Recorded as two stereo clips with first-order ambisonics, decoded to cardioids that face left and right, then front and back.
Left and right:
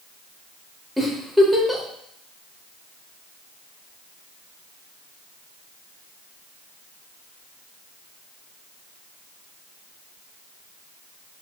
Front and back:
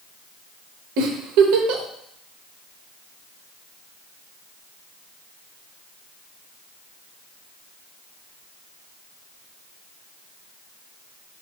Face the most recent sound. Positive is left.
turn(degrees=180)